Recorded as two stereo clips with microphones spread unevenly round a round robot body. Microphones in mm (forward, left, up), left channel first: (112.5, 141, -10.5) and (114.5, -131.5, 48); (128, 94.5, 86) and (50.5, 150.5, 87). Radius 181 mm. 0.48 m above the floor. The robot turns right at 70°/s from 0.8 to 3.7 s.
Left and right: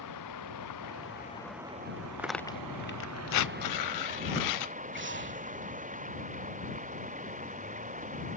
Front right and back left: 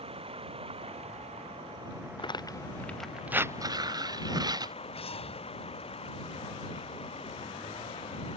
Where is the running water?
130° left; by 8.4 s 30° right.